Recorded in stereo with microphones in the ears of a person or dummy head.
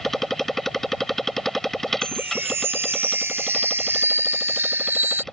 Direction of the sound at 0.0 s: 5° left (ahead or behind).